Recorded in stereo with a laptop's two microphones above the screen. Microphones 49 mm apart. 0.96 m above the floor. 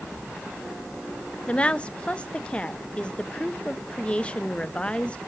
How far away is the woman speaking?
About 0.5 m.